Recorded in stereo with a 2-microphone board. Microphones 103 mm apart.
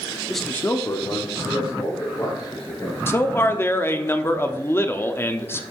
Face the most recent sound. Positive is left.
turn(degrees=25)  # may be behind; listen again after turning